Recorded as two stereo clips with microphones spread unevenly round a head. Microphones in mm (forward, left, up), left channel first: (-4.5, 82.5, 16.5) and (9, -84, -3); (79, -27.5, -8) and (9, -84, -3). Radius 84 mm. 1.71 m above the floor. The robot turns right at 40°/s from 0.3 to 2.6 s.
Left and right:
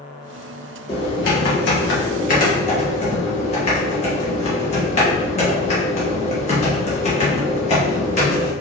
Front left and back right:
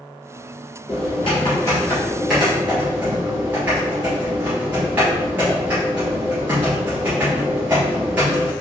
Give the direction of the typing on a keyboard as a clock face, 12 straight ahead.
10 o'clock.